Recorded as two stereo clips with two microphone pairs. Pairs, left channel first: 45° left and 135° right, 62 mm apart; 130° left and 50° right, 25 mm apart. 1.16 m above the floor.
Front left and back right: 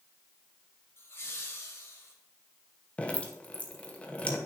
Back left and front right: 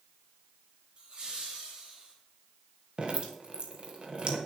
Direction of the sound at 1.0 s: Straight ahead.